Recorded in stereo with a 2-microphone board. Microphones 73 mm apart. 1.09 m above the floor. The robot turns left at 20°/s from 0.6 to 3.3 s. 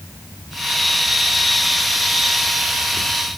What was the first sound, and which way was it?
Only background noise.